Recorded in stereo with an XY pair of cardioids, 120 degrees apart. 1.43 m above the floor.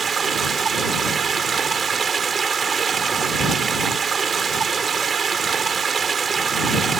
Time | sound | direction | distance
0.0 | running water | 35° right | ?